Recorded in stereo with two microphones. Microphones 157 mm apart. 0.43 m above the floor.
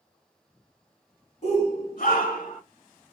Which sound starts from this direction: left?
A shout, at 1.4 s.